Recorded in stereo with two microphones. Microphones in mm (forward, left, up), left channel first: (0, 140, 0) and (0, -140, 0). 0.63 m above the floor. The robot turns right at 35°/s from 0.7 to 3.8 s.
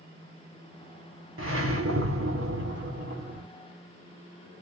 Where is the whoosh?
110° right, 1.7 m; by 3.4 s 35° right, 1.7 m.